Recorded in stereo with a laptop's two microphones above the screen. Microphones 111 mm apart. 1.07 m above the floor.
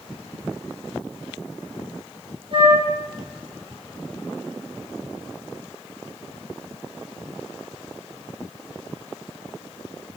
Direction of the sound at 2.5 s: 45° right (ahead or behind).